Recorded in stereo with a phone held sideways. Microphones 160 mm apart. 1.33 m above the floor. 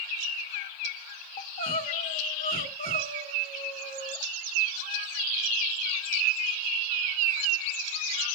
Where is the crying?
70° left (ahead or behind), 1.4 m.